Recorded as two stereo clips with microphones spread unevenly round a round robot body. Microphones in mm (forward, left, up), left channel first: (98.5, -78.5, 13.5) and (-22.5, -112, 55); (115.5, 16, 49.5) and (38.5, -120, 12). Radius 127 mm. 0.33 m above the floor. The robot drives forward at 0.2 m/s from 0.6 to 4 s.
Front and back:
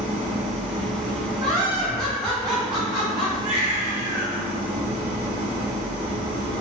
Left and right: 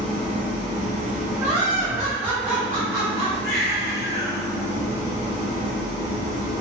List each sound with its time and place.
0.0 s an engine running: 135° left, 0.8 m; by 6.6 s 160° left, 1.3 m
1.4 s laughter: 130° right, 1.4 m; by 3.3 s 145° right, 1.5 m
3.4 s a baby crying: 145° left, 1.5 m